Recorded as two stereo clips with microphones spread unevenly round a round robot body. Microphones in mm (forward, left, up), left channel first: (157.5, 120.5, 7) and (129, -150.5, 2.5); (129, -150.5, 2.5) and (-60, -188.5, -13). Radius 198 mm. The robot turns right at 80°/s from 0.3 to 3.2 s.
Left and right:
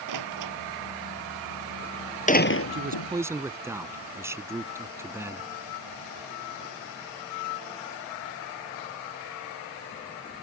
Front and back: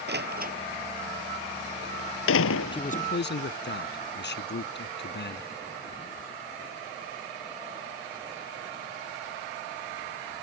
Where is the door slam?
140° right; by 3.1 s 85° left.